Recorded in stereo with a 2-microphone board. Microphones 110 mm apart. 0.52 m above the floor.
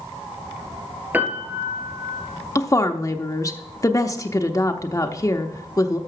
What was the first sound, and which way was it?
A piano, 15° right (ahead or behind).